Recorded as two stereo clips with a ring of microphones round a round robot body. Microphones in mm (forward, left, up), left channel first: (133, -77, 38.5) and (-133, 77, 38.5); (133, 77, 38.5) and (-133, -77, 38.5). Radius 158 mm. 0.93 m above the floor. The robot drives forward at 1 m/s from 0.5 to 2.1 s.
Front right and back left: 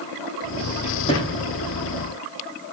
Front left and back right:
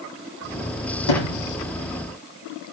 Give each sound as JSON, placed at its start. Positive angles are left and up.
{"t": 1.1, "sound": "a sliding door", "azimuth_deg": 40, "distance_m": 9.0}